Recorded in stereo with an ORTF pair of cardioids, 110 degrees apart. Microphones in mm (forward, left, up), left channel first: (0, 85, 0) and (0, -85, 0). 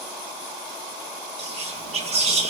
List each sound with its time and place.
1.4 s whispering: 35° right, 1.2 m